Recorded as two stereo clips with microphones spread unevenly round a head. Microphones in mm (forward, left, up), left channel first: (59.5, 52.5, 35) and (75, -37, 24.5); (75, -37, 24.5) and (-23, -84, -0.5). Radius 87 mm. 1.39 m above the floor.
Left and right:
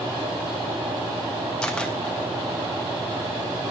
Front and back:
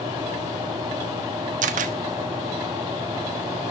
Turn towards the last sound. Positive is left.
turn(degrees=-175)